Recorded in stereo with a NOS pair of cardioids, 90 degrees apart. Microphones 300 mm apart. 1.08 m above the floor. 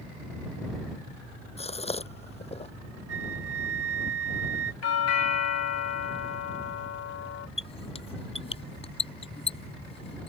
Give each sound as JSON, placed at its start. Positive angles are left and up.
{"t": 1.6, "sound": "a gasp", "azimuth_deg": 20}
{"t": 3.1, "sound": "a flute", "azimuth_deg": -50}
{"t": 4.8, "sound": "a doorbell", "azimuth_deg": 60}
{"t": 7.6, "sound": "a squeak", "azimuth_deg": 20}